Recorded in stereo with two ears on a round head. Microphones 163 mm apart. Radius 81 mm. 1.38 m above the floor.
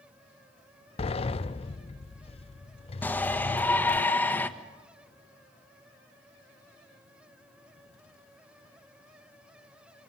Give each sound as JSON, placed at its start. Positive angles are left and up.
{"t": 1.0, "sound": "a sliding door", "side_deg": 35, "distance_m": 0.6}
{"t": 3.0, "sound": "a shout", "side_deg": 10, "distance_m": 1.4}